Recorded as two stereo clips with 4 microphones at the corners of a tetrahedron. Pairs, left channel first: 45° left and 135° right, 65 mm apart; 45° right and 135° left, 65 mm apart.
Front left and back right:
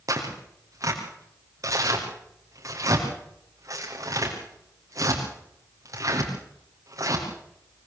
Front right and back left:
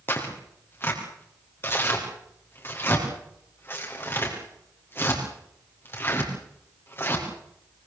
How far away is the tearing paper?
About 6 m.